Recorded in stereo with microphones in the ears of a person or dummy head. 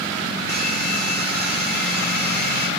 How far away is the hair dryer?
About 1.7 m.